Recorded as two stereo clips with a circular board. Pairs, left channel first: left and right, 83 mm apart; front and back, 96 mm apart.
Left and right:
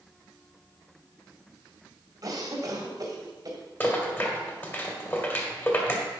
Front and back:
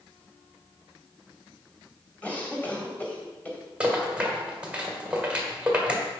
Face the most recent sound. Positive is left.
turn(degrees=115)